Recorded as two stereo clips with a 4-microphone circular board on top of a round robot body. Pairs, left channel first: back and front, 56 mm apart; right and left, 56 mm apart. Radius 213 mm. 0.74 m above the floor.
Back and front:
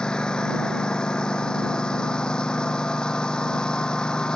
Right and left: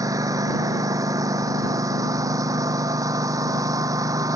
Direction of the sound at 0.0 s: 105° left.